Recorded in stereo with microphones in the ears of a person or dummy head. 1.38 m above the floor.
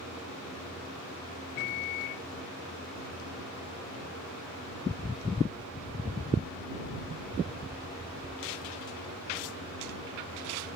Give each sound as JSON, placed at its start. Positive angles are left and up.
{"t": 1.6, "sound": "a microwave", "side_deg": 50}